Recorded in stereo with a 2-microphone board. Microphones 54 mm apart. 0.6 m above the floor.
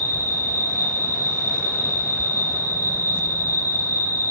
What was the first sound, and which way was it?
An insect, 60° left (ahead or behind).